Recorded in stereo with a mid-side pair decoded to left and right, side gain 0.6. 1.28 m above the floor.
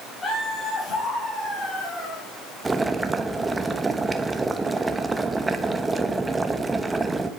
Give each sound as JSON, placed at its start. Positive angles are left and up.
{"t": 0.2, "sound": "laughter", "azimuth_deg": 30, "distance_m": 4.0}
{"t": 2.6, "sound": "boiling", "azimuth_deg": -15, "distance_m": 0.9}